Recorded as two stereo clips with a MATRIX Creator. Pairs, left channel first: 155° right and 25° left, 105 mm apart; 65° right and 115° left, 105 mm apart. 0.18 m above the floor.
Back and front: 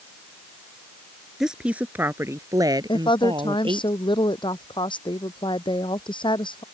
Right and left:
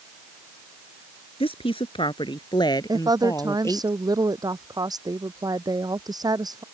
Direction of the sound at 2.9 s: 165° left.